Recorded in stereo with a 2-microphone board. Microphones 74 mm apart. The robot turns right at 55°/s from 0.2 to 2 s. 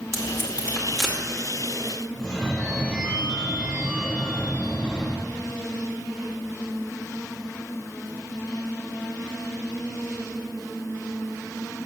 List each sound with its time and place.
0.1 s tape being pulled: 40° right (ahead or behind), 2.5 m; by 1.2 s 10° left (ahead or behind), 2.5 m
2.1 s a phone ringing: 15° left (ahead or behind), 2 m